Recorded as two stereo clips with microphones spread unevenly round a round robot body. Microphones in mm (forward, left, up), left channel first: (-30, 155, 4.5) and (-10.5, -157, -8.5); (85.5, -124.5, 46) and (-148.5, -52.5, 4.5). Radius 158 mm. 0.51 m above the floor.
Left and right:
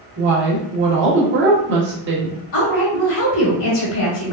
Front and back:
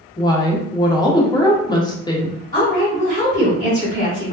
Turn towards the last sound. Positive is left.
turn(degrees=45)